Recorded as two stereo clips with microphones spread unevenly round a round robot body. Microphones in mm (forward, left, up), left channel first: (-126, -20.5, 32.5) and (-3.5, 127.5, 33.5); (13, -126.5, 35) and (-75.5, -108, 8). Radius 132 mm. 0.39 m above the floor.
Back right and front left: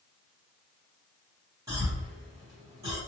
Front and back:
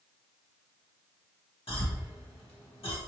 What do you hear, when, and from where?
1.7 s a cough: 20° right, 1.9 m